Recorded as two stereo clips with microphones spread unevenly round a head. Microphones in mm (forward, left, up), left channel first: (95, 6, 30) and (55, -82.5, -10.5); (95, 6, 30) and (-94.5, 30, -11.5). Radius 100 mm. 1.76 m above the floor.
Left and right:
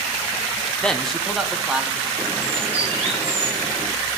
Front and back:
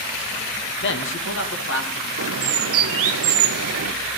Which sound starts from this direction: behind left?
A bird, at 2.2 s.